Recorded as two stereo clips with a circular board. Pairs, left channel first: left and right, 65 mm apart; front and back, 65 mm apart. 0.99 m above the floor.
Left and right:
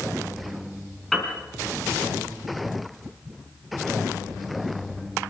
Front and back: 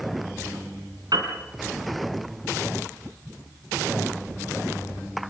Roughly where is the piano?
Behind.